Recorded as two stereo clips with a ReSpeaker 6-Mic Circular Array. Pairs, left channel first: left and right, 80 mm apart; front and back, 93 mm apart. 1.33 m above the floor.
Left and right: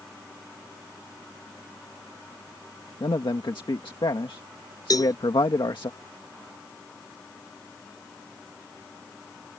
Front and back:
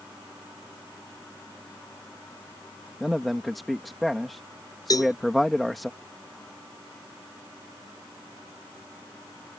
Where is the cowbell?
50° left.